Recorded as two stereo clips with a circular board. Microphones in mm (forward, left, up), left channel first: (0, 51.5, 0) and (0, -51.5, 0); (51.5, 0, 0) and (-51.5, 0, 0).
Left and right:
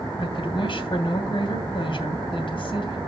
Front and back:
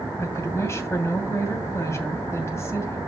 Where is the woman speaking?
60° left, 2.5 m.